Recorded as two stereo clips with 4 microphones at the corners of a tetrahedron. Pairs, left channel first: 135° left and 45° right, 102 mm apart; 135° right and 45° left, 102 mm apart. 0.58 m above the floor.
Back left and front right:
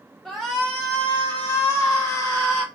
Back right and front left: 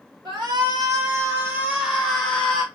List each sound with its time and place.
0.2 s a shout: 45° left, 1.2 m; by 2.6 s 155° left, 1.1 m